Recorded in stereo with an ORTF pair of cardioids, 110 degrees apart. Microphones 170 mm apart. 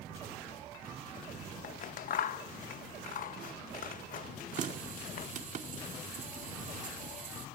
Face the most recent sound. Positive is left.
turn(degrees=-50)